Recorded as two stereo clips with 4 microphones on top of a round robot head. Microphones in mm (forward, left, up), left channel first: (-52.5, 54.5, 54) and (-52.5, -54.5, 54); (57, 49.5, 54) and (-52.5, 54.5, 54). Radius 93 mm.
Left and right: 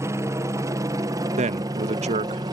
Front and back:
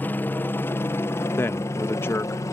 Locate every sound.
0.0 s a helicopter: 60° right; by 2.5 s 55° right
1.4 s a man speaking: 75° right